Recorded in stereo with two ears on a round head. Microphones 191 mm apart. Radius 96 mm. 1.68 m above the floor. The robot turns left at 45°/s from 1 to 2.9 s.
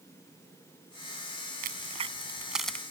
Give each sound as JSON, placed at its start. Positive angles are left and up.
{"t": 1.6, "sound": "a crack", "side_deg": -45}